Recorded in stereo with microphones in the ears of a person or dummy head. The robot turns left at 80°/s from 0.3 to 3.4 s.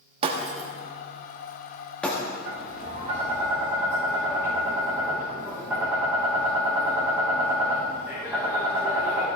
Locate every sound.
0.2 s breaking glass: 35° right (ahead or behind), 1.2 m; by 2.2 s 20° left (ahead or behind), 1.2 m
2.5 s tapping: 95° right, 4 m; by 9.3 s 170° right, 4 m